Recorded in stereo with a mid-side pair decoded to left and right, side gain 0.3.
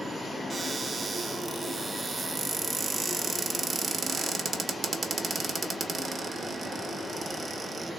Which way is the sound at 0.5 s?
55° right.